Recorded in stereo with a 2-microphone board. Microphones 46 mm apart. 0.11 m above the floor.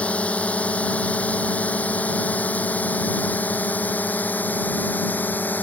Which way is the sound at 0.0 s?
25° left (ahead or behind).